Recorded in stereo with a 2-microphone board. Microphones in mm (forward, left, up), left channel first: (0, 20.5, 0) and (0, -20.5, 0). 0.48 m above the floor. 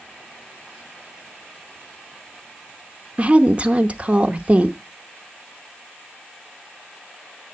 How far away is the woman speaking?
About 0.8 m.